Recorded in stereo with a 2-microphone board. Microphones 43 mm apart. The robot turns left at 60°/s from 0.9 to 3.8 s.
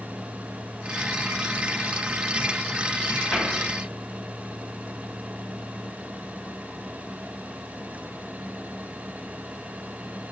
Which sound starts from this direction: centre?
A cupboard door, at 3.3 s.